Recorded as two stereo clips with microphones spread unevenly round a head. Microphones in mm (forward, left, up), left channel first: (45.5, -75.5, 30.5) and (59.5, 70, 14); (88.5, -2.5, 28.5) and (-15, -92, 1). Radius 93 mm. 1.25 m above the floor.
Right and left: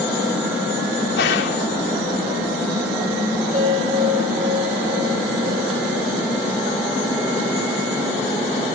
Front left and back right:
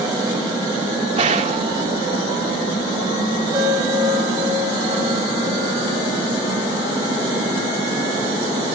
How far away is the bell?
About 8 m.